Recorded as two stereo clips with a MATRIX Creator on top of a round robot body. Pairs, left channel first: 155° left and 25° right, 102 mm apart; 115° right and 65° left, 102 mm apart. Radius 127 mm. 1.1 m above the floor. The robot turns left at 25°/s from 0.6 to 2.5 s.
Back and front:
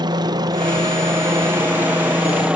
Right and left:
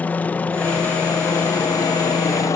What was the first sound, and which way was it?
A helicopter, 45° right.